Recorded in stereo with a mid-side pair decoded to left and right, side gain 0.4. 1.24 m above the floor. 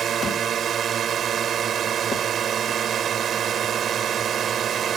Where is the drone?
60° right.